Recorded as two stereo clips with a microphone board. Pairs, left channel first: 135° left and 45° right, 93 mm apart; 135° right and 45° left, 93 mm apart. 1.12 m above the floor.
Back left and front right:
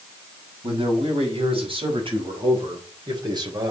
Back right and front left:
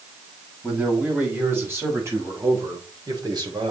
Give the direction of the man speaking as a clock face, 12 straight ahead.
1 o'clock.